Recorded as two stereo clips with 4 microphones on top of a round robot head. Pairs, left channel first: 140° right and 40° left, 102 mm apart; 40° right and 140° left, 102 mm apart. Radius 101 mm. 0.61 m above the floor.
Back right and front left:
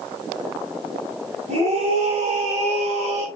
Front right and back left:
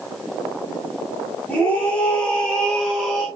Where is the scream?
30° left, 6.5 m; by 3.2 s 45° left, 5.5 m.